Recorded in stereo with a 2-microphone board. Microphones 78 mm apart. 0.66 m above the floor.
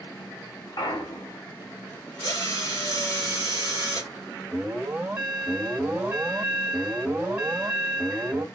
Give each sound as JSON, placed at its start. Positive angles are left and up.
{"t": 0.8, "sound": "a clunk", "side_deg": 55, "distance_m": 1.9}
{"t": 2.2, "sound": "a drill", "side_deg": 50, "distance_m": 2.5}
{"t": 4.5, "sound": "an alarm", "side_deg": -20, "distance_m": 1.6}